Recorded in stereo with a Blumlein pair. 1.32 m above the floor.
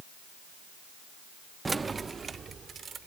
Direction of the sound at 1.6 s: 10° right.